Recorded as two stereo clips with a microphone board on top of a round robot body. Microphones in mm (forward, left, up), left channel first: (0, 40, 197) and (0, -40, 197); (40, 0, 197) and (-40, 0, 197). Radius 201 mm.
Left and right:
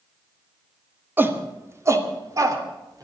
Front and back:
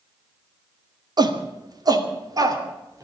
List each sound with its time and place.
1.2 s a shout: 155° right, 2 m; by 3.0 s 135° right, 3.5 m